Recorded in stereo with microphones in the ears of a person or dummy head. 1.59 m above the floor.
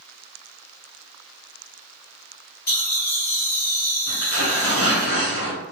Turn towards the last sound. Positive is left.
turn(degrees=45)  # may be behind; listen again after turning